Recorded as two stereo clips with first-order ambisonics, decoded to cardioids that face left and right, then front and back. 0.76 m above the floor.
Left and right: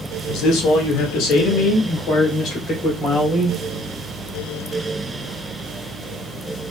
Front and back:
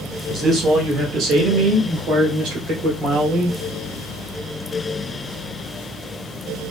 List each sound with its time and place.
0.3 s a man speaking: 105° left, 0.8 m; by 3.6 s 145° left, 2.5 m